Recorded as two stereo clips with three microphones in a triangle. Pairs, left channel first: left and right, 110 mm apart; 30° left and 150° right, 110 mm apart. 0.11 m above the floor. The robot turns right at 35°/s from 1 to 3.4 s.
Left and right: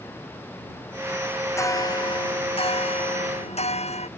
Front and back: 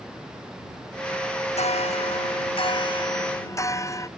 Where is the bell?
25° left; by 4.1 s 90° left.